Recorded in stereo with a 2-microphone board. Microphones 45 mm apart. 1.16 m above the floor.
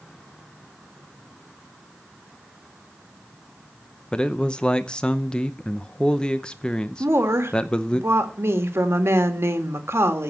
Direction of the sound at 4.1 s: 20° left (ahead or behind).